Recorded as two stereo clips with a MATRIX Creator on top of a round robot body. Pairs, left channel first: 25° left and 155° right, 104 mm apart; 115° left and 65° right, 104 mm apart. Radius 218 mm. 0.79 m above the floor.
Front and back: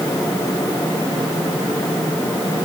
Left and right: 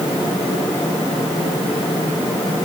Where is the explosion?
I don't hear an explosion.